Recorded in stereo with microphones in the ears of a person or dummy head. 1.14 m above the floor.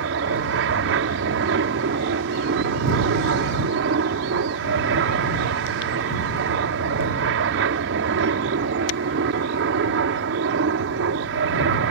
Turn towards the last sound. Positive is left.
turn(degrees=-65)  # may be behind; listen again after turning